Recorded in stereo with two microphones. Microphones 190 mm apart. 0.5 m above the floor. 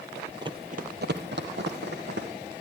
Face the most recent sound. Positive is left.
turn(degrees=-65)  # may be behind; listen again after turning